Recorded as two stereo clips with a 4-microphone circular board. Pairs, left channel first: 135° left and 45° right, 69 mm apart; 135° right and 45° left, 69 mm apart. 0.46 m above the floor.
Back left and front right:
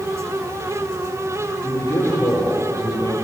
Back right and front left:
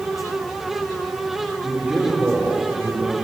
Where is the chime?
No chime in this recording.